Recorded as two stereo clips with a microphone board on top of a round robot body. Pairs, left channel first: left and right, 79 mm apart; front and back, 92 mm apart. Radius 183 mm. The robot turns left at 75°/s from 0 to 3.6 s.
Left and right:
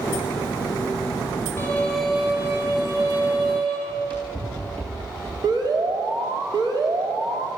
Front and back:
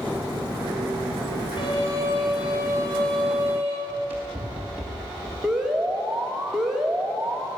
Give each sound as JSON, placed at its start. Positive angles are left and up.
{"t": 1.6, "sound": "a violin", "azimuth_deg": 35, "distance_m": 6.0}
{"t": 3.9, "sound": "running footsteps", "azimuth_deg": -110, "distance_m": 7.0}
{"t": 5.4, "sound": "an alarm", "azimuth_deg": -95, "distance_m": 3.0}